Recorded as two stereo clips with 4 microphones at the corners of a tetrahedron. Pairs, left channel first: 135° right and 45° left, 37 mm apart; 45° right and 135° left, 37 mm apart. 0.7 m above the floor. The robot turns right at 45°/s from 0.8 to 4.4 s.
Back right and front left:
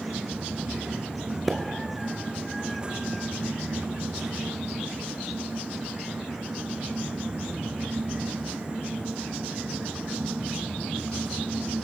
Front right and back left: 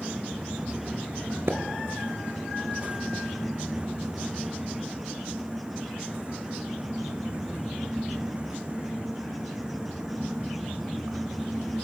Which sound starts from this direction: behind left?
A splash, at 1.5 s.